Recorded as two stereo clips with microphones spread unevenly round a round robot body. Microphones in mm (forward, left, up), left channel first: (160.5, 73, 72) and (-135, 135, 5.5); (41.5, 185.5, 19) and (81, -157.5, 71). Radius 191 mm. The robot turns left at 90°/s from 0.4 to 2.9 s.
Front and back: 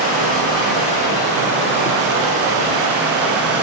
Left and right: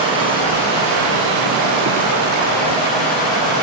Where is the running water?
10° right, 10 m; by 3.6 s 125° left, 10 m.